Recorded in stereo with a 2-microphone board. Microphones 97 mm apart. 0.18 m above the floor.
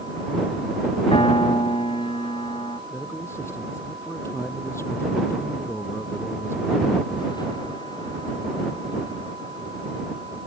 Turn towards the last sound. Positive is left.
turn(degrees=25)  # may be behind; listen again after turning